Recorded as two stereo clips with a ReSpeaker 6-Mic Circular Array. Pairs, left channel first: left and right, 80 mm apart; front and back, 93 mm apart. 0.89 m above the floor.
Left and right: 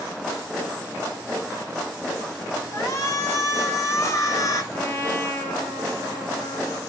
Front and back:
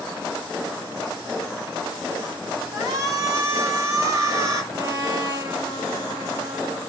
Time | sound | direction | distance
2.7 | a shout | 135° left | 2.5 m
4.7 | a trumpet | 145° left | 1.5 m